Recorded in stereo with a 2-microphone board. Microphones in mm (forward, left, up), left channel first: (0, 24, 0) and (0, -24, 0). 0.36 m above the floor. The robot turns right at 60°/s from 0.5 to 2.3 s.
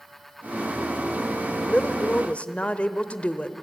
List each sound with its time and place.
1.6 s a woman speaking: 30° left (ahead or behind), 1.0 m; by 3.6 s 25° left (ahead or behind), 1.0 m